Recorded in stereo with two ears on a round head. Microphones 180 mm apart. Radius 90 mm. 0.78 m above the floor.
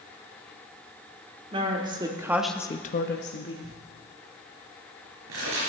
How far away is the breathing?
I don't hear breathing.